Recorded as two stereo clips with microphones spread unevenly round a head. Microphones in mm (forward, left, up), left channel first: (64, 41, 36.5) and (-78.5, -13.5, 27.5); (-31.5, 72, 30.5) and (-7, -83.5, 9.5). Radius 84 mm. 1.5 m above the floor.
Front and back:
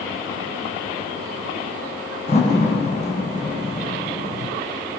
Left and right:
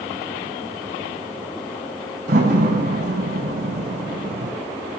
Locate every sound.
2.3 s a door slam: 35° right, 8 m